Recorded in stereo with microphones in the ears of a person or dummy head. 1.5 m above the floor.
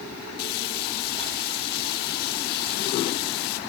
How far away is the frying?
About 1.2 m.